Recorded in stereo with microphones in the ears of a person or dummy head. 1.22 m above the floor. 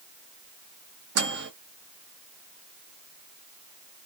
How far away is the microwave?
About 0.7 m.